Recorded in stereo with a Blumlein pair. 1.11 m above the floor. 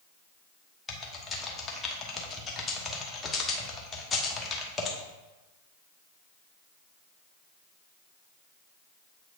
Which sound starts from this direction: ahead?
Typing on a keyboard, at 0.9 s.